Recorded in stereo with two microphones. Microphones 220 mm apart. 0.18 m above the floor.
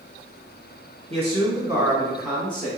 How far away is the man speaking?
About 1.3 m.